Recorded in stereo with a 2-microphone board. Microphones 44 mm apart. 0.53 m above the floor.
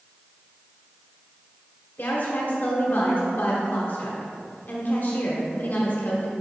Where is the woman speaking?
45° left (ahead or behind), 1.4 m.